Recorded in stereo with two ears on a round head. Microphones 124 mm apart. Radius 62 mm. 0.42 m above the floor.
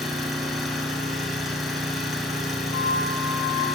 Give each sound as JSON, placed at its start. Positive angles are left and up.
{"t": 0.0, "sound": "an engine running", "side_deg": 0, "distance_m": 3.0}
{"t": 2.7, "sound": "a flute", "side_deg": 25, "distance_m": 6.5}